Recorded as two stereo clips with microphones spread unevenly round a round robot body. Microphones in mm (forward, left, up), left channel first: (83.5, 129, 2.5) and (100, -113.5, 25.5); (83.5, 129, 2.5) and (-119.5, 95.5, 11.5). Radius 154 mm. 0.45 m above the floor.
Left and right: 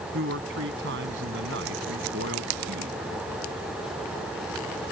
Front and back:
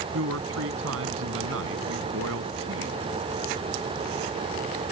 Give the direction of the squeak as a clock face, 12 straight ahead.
I don't hear a squeak.